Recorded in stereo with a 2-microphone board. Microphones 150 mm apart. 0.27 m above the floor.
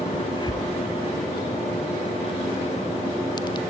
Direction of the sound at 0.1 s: 30° left (ahead or behind).